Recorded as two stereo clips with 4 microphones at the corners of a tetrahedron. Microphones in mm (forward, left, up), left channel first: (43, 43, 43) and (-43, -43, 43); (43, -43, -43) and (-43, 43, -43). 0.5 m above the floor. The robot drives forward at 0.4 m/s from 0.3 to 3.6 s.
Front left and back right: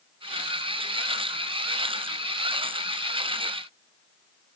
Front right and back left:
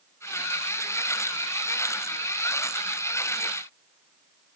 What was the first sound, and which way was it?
Only background noise.